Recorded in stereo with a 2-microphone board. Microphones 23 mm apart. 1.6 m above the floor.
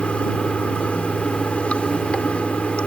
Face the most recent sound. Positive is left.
turn(degrees=70)  # may be behind; listen again after turning